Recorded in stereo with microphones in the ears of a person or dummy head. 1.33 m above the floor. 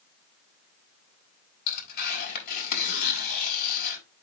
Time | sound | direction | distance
1.7 | tearing paper | 55° left (ahead or behind) | 4.5 m